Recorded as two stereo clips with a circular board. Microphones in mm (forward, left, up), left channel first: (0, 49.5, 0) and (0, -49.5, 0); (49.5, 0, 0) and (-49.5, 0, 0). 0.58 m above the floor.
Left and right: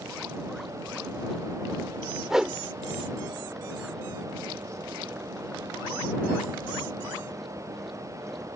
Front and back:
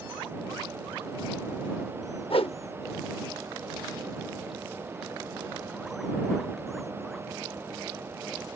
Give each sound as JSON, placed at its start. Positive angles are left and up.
{"t": 2.3, "sound": "a whoosh", "azimuth_deg": -5}